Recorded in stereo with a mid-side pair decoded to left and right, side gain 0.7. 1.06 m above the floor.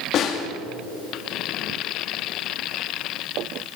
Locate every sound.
0.1 s a snare drum: 45° left, 2.5 m